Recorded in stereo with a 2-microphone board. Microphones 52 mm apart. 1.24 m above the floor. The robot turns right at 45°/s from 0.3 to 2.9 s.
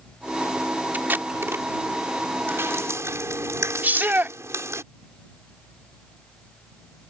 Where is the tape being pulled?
35° right (ahead or behind); by 1.6 s 65° right (ahead or behind).